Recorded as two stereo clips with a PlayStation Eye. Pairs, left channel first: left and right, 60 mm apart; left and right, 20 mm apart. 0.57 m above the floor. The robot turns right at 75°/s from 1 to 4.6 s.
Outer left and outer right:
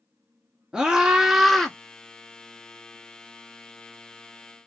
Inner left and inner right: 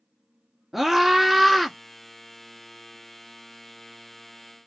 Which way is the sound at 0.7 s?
15° right (ahead or behind).